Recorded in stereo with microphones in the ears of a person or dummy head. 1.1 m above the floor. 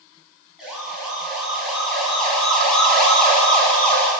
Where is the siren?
5° right (ahead or behind), 8.5 m; by 4.1 s 10° left (ahead or behind), 6 m.